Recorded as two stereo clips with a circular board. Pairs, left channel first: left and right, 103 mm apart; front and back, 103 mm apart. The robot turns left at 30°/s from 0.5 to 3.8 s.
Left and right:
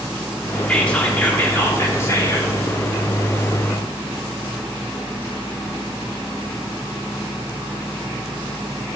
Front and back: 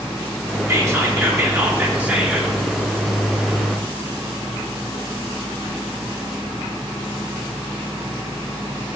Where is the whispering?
160° left, 0.8 m; by 2.5 s 105° left, 0.8 m.